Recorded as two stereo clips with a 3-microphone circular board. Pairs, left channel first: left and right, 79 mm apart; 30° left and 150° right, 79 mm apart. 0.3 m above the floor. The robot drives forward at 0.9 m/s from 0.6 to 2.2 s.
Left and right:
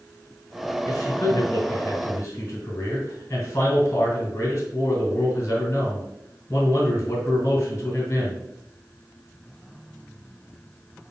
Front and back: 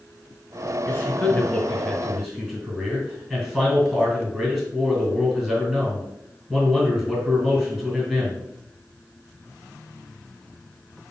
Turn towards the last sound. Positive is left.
turn(degrees=135)